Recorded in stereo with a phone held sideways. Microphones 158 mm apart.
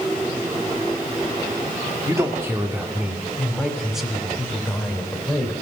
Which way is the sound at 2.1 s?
20° right (ahead or behind).